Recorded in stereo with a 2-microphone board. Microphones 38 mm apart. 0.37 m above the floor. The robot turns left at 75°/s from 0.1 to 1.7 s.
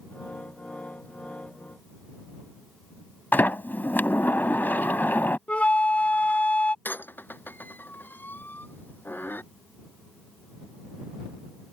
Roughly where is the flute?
Left.